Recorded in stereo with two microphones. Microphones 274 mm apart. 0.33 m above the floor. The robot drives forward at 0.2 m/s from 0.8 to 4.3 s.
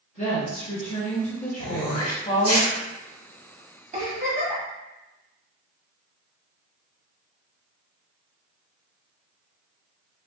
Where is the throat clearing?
55° left (ahead or behind), 0.7 m; by 2.8 s 60° left (ahead or behind), 0.7 m.